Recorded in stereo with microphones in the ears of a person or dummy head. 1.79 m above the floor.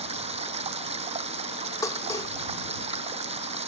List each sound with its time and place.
0.0 s running water: 30° right (ahead or behind)
1.8 s dishes clattering: 15° left (ahead or behind)